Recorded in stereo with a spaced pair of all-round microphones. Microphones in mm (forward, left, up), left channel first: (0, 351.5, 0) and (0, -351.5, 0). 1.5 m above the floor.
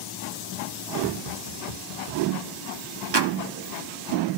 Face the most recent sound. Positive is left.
turn(degrees=-35)  # may be behind; listen again after turning